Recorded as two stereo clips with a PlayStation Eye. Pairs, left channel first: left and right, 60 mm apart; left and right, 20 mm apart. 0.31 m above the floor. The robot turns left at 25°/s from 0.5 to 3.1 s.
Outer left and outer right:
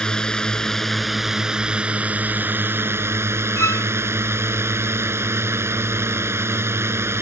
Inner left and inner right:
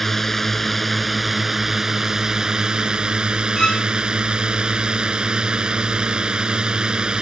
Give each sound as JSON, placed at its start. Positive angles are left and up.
{"t": 0.0, "sound": "a drone", "azimuth_deg": 15}
{"t": 3.6, "sound": "a violin", "side_deg": 55}